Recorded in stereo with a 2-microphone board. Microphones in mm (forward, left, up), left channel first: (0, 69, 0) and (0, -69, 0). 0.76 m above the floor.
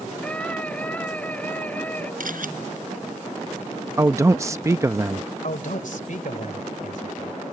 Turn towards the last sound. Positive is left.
turn(degrees=75)  # may be behind; listen again after turning